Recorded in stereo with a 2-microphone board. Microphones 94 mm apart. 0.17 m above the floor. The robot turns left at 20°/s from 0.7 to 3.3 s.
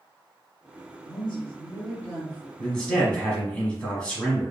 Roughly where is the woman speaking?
Centre.